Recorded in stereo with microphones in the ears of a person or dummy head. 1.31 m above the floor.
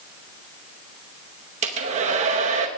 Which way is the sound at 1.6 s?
35° right (ahead or behind).